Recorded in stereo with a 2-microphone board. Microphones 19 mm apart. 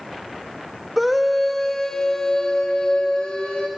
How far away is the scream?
About 1.1 m.